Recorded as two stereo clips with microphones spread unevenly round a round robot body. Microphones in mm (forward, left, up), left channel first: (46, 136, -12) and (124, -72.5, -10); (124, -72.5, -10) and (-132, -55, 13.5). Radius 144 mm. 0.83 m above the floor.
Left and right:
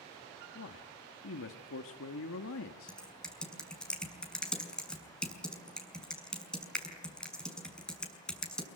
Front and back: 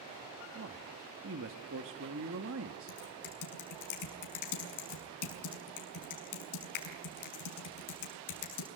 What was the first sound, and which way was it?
A man speaking, 135° left.